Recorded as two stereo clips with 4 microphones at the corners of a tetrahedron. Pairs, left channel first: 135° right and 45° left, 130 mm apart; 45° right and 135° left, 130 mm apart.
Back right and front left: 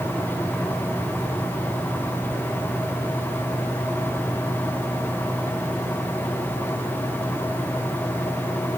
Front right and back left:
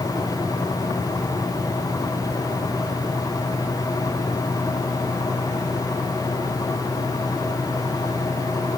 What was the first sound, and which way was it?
Only background noise.